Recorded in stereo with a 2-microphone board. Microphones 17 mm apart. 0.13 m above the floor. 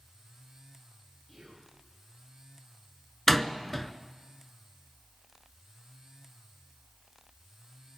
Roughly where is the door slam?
Centre.